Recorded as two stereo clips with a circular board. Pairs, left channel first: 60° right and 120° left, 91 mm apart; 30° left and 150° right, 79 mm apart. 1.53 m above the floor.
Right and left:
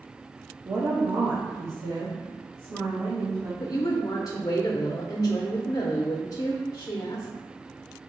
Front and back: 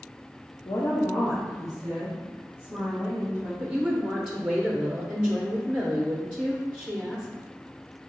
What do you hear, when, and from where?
0.7 s a woman speaking: 65° left, 0.8 m; by 3.5 s 145° left, 3.5 m
3.6 s a woman speaking: 75° right, 0.6 m